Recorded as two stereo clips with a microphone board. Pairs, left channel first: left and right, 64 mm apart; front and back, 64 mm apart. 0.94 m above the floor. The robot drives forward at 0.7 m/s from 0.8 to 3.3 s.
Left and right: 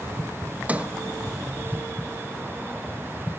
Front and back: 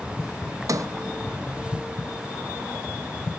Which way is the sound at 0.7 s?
160° right.